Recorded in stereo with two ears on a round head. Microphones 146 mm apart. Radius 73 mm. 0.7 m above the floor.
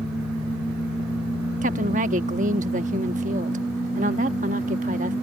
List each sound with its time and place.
1.6 s a woman speaking: 50° right (ahead or behind)